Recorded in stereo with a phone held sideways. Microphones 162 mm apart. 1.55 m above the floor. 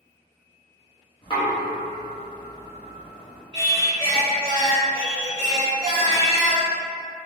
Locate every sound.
1.2 s knocking: 30° left (ahead or behind), 0.8 m
3.5 s singing: 20° right (ahead or behind), 1.3 m